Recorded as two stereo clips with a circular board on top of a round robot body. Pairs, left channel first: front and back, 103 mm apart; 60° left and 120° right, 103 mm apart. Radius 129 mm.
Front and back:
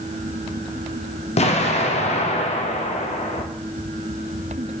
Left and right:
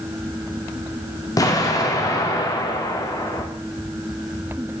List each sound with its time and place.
1.4 s an explosion: 5° left, 0.5 m